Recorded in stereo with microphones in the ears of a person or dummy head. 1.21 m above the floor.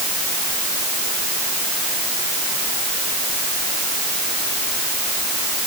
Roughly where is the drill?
I don't hear a drill.